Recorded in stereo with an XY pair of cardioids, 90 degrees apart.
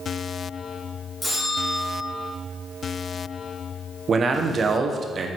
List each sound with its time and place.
1.2 s a bell: 10° left, 3 m
4.1 s a man speaking: 50° right, 1.1 m